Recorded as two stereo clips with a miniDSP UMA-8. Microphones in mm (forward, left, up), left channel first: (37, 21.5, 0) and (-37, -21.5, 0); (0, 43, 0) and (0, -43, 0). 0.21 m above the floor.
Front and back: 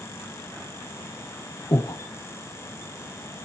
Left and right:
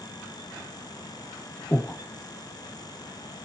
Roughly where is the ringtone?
No ringtone in this recording.